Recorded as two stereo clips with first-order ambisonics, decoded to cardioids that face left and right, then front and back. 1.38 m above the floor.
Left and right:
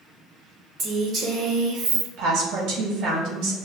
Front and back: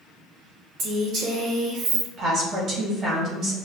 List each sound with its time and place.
0.8 s a woman speaking: 145° right, 1.5 m; by 2.1 s 130° right, 0.6 m
2.2 s a woman speaking: 125° right, 1.2 m